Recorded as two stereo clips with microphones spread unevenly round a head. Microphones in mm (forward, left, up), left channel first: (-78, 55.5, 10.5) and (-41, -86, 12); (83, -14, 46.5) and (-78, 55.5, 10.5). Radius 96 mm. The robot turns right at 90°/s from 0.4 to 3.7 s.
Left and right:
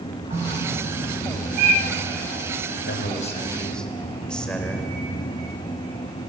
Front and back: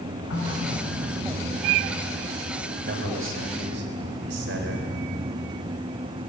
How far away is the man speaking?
About 3.5 m.